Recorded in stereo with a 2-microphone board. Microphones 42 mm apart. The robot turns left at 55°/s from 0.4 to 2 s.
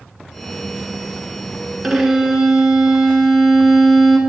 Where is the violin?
Centre (ahead or behind), 1.3 m; by 4.2 s 10° right (ahead or behind), 1.3 m.